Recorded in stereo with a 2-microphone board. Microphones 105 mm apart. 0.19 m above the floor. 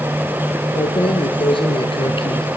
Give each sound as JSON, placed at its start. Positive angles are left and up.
{"t": 0.8, "sound": "keys jangling", "side_deg": 55, "distance_m": 2.5}